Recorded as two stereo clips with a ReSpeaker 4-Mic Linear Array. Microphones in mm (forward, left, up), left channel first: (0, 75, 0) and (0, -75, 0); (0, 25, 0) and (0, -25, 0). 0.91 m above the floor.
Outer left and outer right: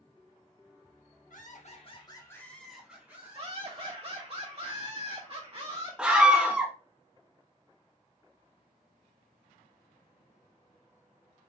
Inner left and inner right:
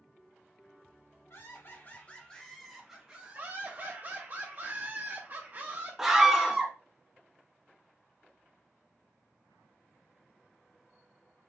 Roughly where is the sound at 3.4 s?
Right.